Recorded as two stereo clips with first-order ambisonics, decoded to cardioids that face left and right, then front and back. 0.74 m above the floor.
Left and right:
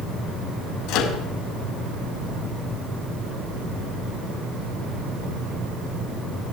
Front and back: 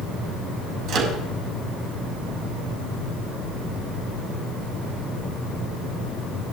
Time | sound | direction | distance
0.9 | a microwave | 130° left | 5 m